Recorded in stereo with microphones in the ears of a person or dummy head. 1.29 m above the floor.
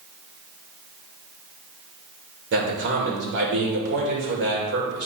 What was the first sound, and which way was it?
A man speaking, 55° right (ahead or behind).